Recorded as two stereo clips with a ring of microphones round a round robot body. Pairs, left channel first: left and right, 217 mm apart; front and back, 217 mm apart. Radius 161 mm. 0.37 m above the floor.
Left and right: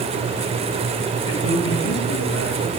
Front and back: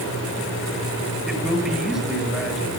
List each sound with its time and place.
1.3 s a man speaking: 90° left, 8 m